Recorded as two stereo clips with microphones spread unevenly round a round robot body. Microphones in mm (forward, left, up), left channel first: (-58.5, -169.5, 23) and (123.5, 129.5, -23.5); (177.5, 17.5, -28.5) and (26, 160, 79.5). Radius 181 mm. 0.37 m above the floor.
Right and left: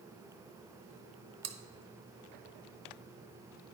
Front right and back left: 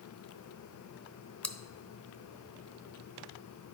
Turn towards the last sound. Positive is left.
turn(degrees=15)